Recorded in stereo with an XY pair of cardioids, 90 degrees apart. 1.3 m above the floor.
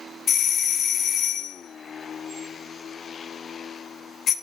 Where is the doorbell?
65° left, 0.9 m.